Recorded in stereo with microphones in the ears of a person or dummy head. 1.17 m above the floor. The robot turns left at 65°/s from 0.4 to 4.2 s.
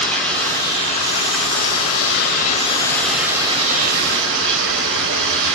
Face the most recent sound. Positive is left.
turn(degrees=-70)